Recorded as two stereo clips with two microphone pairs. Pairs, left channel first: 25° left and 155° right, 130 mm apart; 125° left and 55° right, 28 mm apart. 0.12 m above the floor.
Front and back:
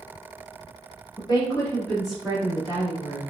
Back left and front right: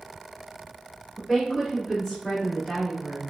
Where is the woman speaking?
40° left, 1.5 m; by 3.2 s 175° right, 1.6 m.